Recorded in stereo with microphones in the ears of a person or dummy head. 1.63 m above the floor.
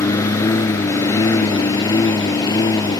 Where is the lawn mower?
15° left (ahead or behind); by 3.0 s 20° left (ahead or behind).